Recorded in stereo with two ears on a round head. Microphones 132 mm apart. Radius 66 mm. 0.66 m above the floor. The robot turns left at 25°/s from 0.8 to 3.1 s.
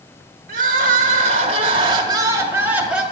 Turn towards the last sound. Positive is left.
turn(degrees=180)